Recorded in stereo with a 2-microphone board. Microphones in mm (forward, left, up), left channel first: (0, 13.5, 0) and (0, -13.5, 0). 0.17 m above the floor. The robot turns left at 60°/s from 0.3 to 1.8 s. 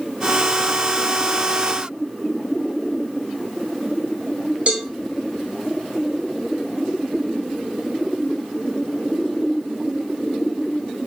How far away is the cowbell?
About 1.0 m.